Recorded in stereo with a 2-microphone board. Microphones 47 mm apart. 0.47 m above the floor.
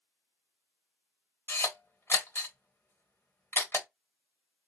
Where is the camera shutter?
60° left (ahead or behind), 1.3 m.